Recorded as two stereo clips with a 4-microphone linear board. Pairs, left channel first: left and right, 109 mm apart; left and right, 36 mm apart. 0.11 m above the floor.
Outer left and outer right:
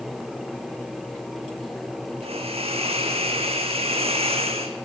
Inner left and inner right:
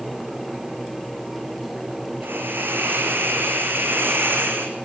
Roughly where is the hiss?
Right.